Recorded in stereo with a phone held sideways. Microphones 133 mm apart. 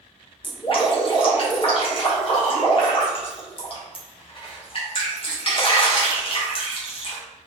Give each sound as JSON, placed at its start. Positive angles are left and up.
{"t": 0.4, "sound": "dripping", "side_deg": 40, "distance_m": 1.1}